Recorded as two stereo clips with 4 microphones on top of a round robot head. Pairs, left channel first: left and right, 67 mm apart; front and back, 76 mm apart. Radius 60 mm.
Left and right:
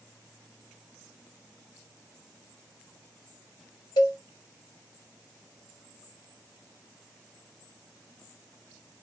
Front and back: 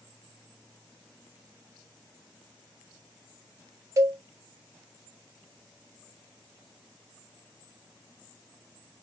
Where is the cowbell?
130° left, 1.1 m.